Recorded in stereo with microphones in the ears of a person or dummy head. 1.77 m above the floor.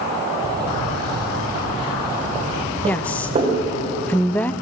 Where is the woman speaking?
5° left (ahead or behind), 0.9 m.